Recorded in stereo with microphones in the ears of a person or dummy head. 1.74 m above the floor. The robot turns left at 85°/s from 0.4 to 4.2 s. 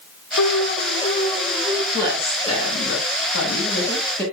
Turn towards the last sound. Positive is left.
turn(degrees=10)